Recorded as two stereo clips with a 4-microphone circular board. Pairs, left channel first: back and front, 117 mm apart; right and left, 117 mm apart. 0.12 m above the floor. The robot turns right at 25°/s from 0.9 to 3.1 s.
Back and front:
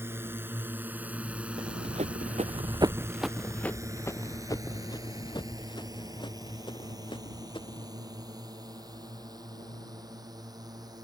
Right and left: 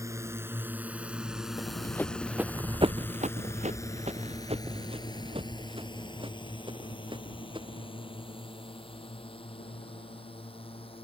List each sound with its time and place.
0.0 s a drone: 50° left; by 11.0 s 55° right
1.6 s running footsteps: 40° right; by 7.9 s 135° left